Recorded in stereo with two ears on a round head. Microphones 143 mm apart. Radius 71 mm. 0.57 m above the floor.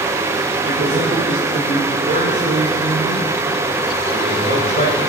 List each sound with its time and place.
0.7 s a man speaking: 45° right (ahead or behind), 1.9 m